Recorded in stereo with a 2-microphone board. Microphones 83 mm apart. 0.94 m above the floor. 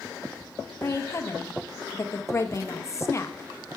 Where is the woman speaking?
35° left (ahead or behind), 0.9 m.